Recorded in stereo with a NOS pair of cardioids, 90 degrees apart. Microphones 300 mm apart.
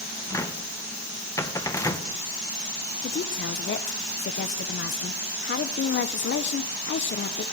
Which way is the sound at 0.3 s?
10° left.